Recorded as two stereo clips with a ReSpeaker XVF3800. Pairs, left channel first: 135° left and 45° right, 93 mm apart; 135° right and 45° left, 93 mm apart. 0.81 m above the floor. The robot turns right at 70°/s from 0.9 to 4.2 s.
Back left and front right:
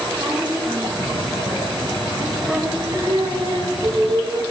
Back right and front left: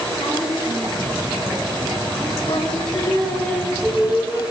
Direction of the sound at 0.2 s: 110° right.